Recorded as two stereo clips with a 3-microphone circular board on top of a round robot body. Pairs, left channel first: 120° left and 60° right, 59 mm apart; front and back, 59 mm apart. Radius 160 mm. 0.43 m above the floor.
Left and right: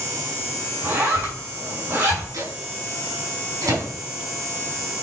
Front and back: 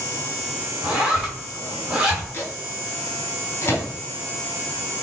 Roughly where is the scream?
No scream in this recording.